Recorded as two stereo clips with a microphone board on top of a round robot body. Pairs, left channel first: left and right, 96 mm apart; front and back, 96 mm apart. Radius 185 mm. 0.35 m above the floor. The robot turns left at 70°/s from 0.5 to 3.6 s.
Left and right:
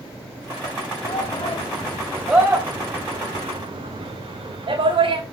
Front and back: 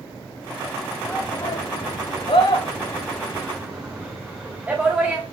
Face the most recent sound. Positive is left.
turn(degrees=-105)